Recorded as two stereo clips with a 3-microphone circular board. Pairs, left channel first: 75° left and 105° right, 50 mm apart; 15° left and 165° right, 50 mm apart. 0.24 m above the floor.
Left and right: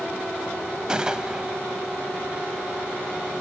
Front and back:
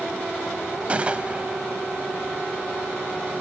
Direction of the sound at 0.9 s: 155° right.